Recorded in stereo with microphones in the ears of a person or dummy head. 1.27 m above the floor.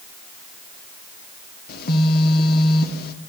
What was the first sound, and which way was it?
A phone buzzing, 65° left (ahead or behind).